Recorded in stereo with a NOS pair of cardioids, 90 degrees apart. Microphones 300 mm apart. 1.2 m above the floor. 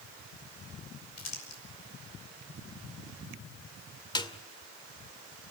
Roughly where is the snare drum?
Ahead.